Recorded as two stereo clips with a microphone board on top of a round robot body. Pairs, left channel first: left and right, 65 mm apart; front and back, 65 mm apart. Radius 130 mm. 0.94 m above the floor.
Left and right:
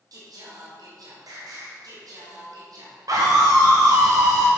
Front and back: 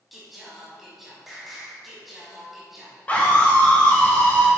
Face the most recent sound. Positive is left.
turn(degrees=-70)